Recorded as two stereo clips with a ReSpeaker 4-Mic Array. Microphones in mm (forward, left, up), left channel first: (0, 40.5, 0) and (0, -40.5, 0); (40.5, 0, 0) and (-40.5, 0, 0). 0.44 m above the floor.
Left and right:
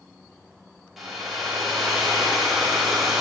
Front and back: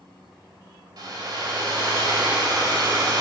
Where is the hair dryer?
Straight behind, 2.5 m.